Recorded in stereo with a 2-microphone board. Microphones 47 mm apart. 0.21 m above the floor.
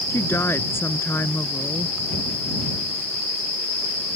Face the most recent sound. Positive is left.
turn(degrees=60)  # may be behind; listen again after turning